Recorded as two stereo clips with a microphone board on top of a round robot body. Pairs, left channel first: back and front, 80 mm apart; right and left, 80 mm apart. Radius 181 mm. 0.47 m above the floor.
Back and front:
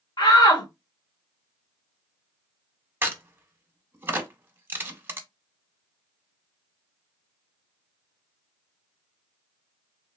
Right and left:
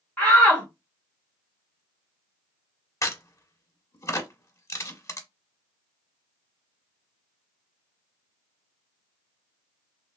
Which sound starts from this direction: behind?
A shout, at 0.2 s.